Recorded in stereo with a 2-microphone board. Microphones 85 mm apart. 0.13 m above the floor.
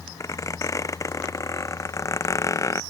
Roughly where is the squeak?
Left.